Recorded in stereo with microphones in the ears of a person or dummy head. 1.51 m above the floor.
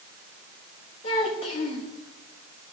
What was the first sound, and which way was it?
A child speaking, 40° left (ahead or behind).